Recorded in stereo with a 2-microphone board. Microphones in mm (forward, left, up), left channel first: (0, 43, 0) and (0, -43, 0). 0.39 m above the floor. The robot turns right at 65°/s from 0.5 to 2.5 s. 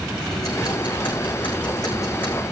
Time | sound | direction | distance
0.3 | ticking | 45° left | 7 m